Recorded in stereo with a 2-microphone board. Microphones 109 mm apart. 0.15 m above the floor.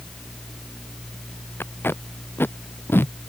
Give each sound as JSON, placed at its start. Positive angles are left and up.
{"t": 1.6, "sound": "tape being pulled", "side_deg": 20}